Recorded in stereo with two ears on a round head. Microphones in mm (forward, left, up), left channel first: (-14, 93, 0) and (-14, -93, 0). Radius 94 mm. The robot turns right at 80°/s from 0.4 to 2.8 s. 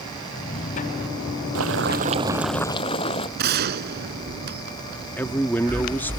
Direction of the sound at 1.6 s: 75° right.